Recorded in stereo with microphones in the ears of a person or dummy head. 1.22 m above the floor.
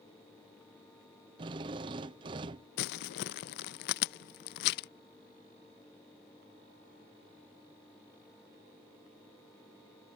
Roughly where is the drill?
Right.